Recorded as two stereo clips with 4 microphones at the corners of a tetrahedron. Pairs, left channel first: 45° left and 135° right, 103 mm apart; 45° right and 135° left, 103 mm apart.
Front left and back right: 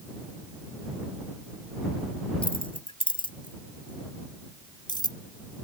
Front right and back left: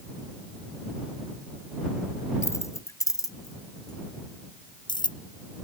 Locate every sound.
2.4 s keys jangling: 15° left; by 5.2 s straight ahead